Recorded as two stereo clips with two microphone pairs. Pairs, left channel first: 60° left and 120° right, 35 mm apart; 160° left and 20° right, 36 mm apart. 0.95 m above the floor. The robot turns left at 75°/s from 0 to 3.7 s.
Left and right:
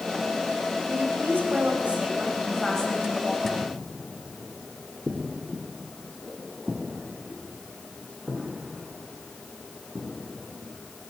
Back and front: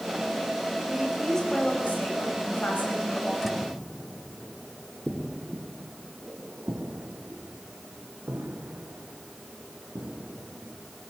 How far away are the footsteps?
About 1.9 m.